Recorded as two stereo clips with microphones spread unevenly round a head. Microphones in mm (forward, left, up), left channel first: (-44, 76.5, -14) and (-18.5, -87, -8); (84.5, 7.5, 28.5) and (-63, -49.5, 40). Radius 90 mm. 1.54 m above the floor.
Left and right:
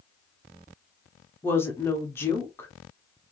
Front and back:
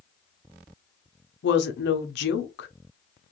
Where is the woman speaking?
20° left, 0.7 m.